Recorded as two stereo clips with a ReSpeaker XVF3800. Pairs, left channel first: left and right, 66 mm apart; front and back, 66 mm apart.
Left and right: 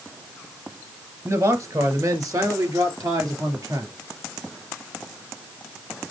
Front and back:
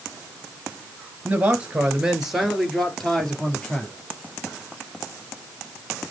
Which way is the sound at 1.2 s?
120° right.